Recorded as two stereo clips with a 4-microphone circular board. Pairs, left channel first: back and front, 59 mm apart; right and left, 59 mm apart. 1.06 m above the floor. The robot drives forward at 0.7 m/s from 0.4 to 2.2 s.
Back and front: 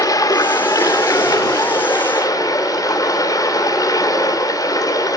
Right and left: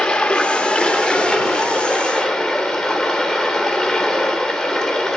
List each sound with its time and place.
0.0 s running water: 170° right, 1.3 m; by 5.2 s 175° right, 2.5 m